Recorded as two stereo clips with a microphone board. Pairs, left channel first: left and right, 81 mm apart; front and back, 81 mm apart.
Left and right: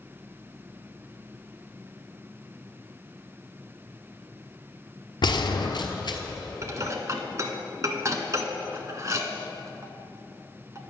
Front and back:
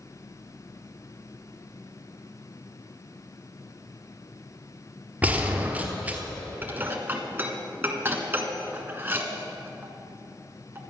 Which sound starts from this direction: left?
A gunshot, at 5.2 s.